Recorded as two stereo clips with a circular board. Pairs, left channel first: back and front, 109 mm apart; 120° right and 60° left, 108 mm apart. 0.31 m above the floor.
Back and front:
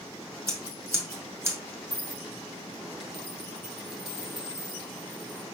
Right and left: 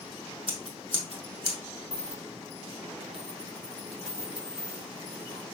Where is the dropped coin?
90° left, 3.5 m.